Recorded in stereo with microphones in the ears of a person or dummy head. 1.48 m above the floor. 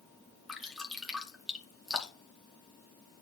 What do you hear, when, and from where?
0.5 s dripping: centre (ahead or behind), 2 m